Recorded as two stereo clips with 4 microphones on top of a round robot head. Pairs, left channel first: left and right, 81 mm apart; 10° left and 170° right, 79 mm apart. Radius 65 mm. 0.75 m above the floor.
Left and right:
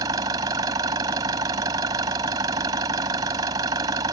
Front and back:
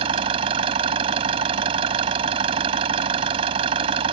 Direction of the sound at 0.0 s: 145° right.